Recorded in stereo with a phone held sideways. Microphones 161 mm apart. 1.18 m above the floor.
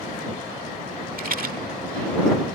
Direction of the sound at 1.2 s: 65° right (ahead or behind).